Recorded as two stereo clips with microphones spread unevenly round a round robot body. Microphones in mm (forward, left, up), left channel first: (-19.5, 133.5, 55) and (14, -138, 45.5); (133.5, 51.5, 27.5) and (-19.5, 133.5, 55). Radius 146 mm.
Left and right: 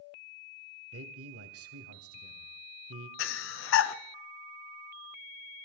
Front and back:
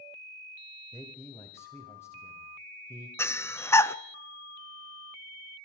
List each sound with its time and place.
0.9 s a man speaking: 95° right, 1.8 m
3.2 s breathing: 50° left, 0.7 m